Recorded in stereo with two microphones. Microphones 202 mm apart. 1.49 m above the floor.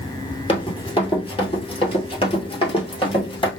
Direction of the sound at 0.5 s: 25° left (ahead or behind).